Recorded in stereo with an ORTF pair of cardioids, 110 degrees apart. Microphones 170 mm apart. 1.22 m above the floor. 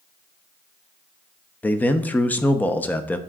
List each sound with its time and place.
1.6 s a man speaking: 10° left, 0.7 m